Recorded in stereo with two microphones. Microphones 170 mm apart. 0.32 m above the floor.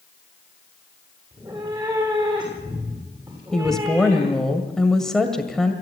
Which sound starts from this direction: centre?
A woman speaking, at 3.5 s.